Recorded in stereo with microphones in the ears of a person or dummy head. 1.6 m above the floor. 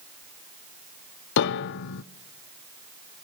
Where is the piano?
65° left (ahead or behind), 0.6 m.